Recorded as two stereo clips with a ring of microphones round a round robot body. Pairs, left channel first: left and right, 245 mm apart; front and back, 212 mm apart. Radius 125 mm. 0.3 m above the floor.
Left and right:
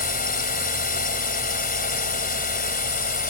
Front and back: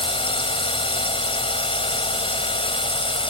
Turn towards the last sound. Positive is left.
turn(degrees=55)